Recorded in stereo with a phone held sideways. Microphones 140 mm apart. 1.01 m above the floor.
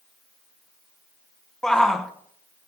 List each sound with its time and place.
1.6 s a shout: 5° left (ahead or behind), 0.9 m